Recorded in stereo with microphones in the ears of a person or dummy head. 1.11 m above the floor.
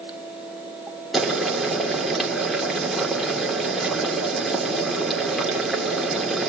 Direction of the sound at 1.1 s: Centre (ahead or behind).